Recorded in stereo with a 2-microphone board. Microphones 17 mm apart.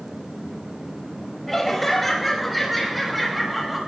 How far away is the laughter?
About 5.5 m.